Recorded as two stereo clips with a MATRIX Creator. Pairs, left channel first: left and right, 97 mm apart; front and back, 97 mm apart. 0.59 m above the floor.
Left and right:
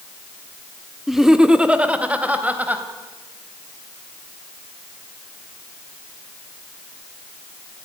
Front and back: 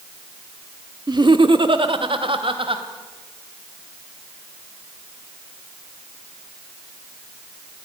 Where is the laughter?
Straight behind, 1.0 m; by 2.8 s 165° right, 3 m.